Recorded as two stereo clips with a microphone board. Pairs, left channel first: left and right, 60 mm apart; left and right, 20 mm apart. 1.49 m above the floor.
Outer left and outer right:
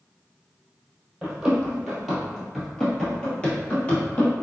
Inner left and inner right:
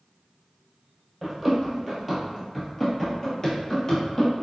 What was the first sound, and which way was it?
Running footsteps, 10° right (ahead or behind).